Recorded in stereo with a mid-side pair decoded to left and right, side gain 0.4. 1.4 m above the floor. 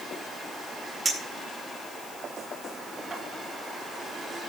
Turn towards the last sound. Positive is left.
turn(degrees=-25)